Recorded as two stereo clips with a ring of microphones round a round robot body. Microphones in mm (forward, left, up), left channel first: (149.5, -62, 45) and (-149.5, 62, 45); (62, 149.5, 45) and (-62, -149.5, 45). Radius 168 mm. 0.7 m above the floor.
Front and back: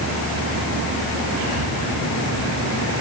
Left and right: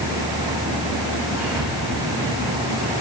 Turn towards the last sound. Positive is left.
turn(degrees=175)